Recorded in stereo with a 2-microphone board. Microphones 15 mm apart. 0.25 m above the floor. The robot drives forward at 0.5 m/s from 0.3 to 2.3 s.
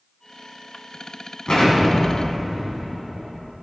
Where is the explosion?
55° left (ahead or behind), 2 m; by 3.5 s 50° left (ahead or behind), 2.5 m.